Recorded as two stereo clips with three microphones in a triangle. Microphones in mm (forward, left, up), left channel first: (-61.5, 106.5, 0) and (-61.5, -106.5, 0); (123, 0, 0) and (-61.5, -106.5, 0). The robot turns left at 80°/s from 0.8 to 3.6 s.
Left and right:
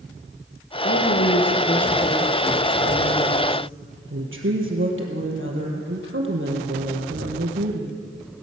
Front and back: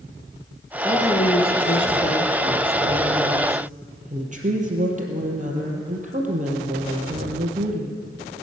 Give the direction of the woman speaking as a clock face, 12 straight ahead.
8 o'clock.